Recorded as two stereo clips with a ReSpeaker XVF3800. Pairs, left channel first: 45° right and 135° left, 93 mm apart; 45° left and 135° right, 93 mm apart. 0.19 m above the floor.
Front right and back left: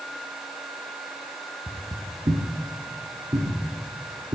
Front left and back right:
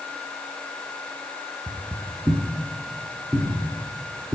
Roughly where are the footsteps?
Behind.